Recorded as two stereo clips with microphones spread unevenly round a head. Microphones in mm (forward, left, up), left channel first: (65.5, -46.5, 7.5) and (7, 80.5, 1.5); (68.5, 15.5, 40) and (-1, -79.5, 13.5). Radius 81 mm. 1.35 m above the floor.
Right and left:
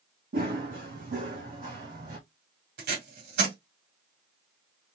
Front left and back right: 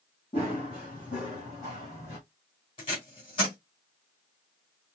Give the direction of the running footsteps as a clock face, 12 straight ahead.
9 o'clock.